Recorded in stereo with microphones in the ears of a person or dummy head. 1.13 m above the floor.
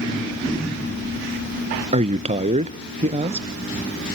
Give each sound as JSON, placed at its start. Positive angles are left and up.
{"t": 1.9, "sound": "a man speaking", "side_deg": -30, "distance_m": 0.6}